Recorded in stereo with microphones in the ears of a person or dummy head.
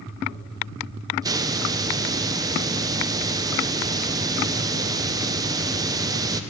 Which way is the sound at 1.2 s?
20° right (ahead or behind).